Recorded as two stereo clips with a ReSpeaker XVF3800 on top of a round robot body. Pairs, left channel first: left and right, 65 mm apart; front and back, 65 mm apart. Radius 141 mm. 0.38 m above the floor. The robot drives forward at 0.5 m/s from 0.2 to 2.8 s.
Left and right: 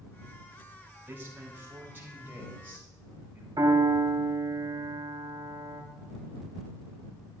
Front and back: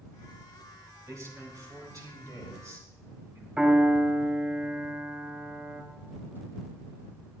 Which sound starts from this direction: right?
A piano, at 3.6 s.